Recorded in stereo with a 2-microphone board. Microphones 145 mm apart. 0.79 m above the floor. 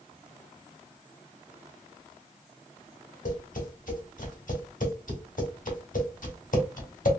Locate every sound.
3.2 s tapping: 70° left (ahead or behind), 1.5 m